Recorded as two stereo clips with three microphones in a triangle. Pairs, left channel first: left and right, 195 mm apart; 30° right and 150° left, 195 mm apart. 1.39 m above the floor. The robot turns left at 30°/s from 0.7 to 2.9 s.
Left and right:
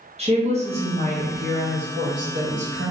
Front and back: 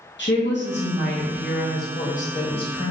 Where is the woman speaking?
35° right, 1.0 m; by 2.9 s 100° right, 1.0 m.